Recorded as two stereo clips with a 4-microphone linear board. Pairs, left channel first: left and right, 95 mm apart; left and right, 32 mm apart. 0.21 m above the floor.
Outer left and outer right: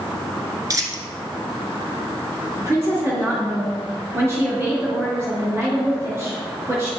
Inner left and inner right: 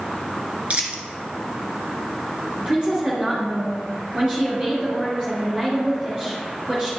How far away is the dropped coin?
About 1.0 m.